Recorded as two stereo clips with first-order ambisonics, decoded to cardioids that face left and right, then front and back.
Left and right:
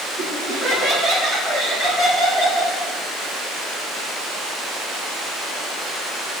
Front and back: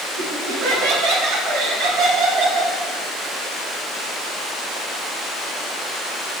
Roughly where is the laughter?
Behind.